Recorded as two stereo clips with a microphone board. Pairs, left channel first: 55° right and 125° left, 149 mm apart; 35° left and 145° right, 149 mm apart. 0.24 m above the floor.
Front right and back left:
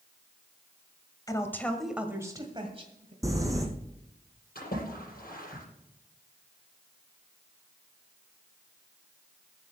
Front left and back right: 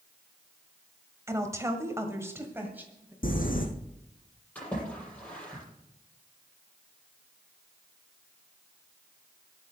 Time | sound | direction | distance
1.3 | a woman speaking | 95° right | 1.8 m
3.2 | crumpling | 55° left | 2 m
4.5 | a splash | 45° right | 8 m